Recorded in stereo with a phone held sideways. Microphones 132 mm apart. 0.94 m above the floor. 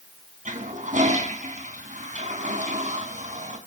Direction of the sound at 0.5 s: 70° right (ahead or behind).